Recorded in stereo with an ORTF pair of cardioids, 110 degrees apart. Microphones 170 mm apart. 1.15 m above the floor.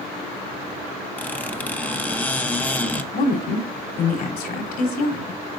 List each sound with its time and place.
1.2 s a squeak: 10° left, 0.9 m
3.1 s a woman speaking: 70° left, 3.5 m